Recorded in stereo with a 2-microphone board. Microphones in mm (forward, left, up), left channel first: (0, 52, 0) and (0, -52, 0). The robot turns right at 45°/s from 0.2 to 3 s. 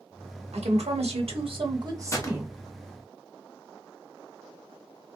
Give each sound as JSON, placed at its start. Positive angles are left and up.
{"t": 0.5, "sound": "a woman speaking", "azimuth_deg": -100, "distance_m": 1.1}
{"t": 2.1, "sound": "a gunshot", "side_deg": 30, "distance_m": 0.7}